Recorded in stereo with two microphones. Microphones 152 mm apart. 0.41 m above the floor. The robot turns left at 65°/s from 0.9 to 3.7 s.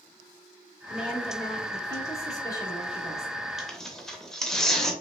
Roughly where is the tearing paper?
Centre.